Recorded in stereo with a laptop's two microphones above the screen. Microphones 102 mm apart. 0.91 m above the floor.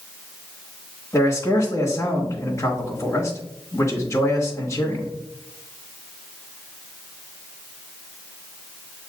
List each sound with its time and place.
1.1 s a man speaking: 30° left (ahead or behind), 1.2 m